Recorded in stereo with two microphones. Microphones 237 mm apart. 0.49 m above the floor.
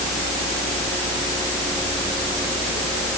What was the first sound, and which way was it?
Only background noise.